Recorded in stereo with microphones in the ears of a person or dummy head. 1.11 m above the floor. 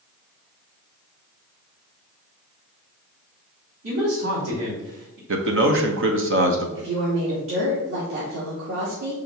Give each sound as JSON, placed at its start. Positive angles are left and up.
{"t": 3.8, "sound": "a man speaking", "side_deg": -80, "distance_m": 3.5}
{"t": 5.3, "sound": "a man speaking", "side_deg": -65, "distance_m": 1.1}
{"t": 6.8, "sound": "a woman speaking", "side_deg": -75, "distance_m": 2.0}